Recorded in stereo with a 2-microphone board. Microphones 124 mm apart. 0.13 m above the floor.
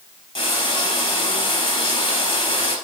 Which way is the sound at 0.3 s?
40° left (ahead or behind).